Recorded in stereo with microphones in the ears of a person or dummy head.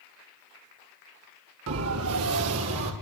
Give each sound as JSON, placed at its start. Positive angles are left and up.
{"t": 1.7, "sound": "a siren", "side_deg": -75, "distance_m": 4.0}